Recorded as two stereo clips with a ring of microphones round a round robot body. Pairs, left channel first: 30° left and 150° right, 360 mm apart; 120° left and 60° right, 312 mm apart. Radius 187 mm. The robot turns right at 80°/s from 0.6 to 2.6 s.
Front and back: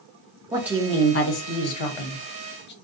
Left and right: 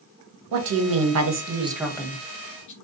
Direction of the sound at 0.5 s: 70° right.